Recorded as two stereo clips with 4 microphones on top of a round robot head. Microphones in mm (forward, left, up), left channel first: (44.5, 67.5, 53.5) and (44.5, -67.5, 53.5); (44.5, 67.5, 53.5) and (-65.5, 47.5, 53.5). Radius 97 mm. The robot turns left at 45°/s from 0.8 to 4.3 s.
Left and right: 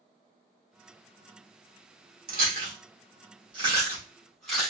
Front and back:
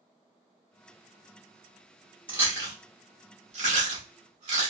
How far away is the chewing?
About 2 m.